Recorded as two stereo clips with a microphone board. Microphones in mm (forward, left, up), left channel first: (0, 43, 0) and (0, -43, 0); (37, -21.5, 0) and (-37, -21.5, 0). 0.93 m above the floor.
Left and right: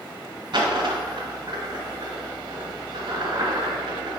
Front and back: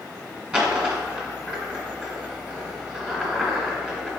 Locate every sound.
0.5 s a dropped coin: 100° right, 1.5 m